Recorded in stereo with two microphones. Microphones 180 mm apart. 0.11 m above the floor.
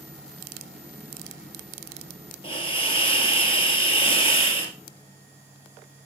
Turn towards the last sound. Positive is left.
turn(degrees=30)  # may be behind; listen again after turning